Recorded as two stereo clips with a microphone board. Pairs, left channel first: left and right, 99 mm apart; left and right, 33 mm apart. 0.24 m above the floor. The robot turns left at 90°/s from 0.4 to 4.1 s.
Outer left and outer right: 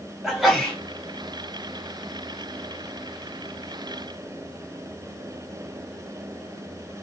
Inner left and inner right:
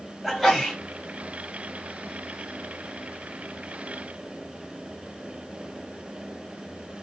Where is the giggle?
I don't hear a giggle.